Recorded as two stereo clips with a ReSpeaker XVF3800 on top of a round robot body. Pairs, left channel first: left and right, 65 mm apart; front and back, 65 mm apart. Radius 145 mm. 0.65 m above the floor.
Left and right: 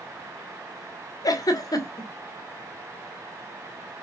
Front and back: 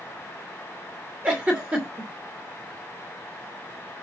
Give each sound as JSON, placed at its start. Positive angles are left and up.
{"t": 1.2, "sound": "a giggle", "azimuth_deg": 105, "distance_m": 2.5}